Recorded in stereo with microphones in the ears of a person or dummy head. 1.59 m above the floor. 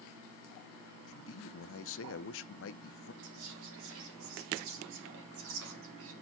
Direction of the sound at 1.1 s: 65° left (ahead or behind).